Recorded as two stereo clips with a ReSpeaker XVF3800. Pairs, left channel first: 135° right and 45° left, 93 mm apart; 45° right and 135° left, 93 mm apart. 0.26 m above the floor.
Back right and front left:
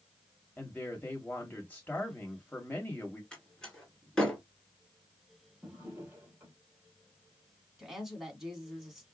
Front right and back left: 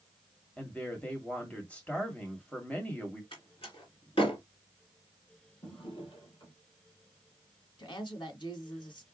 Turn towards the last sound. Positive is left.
turn(degrees=-40)